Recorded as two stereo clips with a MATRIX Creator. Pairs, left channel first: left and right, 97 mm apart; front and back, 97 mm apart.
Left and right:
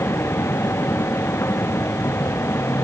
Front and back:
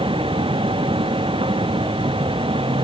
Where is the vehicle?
155° left.